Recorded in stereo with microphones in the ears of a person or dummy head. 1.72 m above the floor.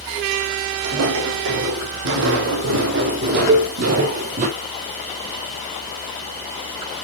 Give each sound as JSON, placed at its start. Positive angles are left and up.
{"t": 0.8, "sound": "footsteps", "side_deg": -70, "distance_m": 4.5}
{"t": 3.5, "sound": "a cowbell", "side_deg": -20, "distance_m": 1.0}